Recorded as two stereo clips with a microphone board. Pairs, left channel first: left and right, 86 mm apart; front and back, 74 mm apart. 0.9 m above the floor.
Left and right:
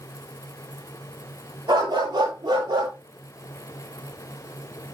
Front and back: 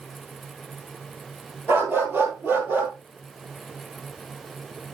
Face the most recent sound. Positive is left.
turn(degrees=-115)